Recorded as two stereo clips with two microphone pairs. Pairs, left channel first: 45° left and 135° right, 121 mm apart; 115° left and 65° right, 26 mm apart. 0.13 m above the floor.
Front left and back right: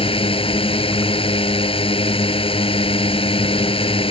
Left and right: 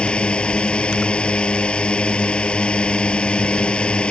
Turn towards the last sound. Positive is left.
turn(degrees=75)